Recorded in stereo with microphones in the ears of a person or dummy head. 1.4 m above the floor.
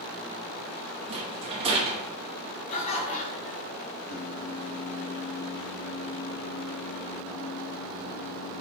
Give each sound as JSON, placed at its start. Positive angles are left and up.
{"t": 1.1, "sound": "a rattle", "side_deg": -30, "distance_m": 0.8}
{"t": 2.7, "sound": "laughter", "side_deg": 40, "distance_m": 1.3}
{"t": 4.1, "sound": "singing", "side_deg": 40, "distance_m": 0.5}